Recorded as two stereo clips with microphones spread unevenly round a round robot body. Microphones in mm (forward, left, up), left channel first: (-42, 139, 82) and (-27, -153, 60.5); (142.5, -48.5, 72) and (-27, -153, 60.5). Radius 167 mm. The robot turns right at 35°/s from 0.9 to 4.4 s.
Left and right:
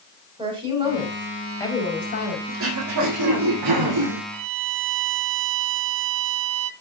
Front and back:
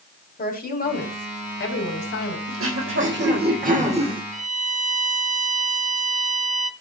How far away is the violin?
About 1.2 m.